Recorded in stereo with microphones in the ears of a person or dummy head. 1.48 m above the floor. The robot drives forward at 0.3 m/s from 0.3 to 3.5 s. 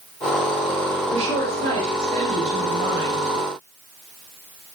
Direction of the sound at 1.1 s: 35° right (ahead or behind).